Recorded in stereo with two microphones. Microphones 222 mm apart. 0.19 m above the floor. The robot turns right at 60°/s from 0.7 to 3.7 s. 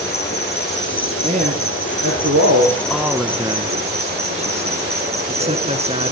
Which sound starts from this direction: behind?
A man speaking, at 2.9 s.